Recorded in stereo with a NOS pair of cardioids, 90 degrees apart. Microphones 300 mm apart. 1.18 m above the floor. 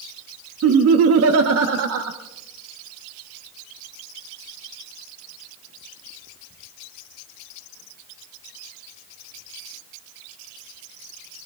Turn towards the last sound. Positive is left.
turn(degrees=-55)